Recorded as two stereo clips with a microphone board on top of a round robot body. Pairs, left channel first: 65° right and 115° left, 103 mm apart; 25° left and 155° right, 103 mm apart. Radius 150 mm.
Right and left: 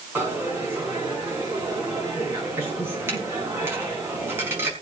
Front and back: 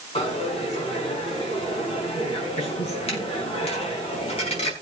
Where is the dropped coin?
45° left, 5 m.